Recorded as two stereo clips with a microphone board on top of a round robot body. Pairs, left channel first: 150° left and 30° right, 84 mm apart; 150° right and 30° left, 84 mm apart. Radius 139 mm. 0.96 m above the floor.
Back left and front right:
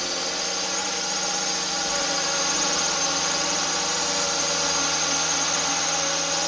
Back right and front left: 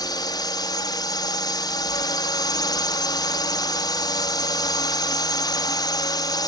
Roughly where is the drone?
Behind right.